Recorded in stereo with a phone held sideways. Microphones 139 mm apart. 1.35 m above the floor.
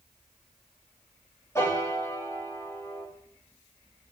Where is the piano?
20° left (ahead or behind), 2.5 m.